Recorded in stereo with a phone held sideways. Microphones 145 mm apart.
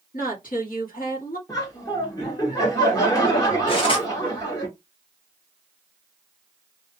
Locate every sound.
0.1 s a woman speaking: 75° left (ahead or behind), 1.4 m
1.5 s laughter: 25° left (ahead or behind), 1.1 m
3.7 s cutlery clinking: 35° left (ahead or behind), 1.2 m